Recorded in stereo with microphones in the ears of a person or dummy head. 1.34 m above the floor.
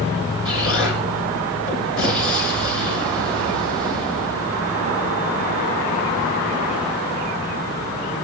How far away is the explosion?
About 6.5 m.